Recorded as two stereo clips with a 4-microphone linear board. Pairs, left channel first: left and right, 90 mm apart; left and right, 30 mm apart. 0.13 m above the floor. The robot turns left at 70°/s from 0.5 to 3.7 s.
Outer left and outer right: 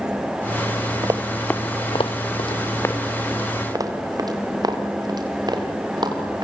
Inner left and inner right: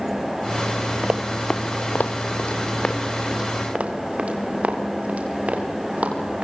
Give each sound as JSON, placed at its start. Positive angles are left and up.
{"t": 1.0, "sound": "running footsteps", "side_deg": -45, "distance_m": 1.3}